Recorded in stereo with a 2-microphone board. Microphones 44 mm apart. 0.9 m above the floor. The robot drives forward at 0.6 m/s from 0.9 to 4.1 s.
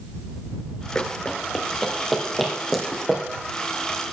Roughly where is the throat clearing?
I don't hear throat clearing.